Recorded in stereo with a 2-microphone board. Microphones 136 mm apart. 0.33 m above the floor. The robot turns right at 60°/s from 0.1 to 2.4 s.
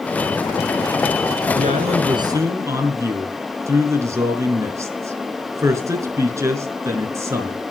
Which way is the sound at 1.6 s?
70° right.